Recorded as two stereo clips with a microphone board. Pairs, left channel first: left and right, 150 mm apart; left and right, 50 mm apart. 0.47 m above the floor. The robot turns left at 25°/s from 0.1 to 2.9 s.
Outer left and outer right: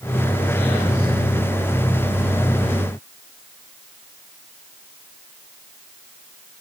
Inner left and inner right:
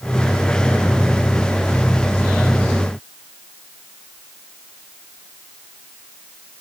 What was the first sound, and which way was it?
Only background noise.